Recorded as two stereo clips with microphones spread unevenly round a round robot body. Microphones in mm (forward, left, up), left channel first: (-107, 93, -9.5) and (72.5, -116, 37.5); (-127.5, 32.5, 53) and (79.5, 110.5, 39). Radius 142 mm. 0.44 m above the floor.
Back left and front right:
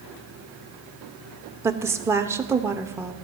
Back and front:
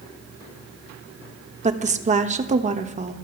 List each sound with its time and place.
1.6 s a woman speaking: 40° left, 1.2 m